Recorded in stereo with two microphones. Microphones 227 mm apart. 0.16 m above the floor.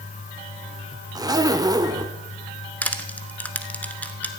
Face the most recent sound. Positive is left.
turn(degrees=5)  # may be behind; listen again after turning